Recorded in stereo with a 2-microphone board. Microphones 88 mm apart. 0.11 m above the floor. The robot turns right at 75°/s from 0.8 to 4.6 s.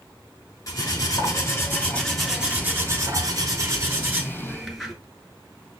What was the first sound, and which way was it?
Cutlery clinking, 75° left.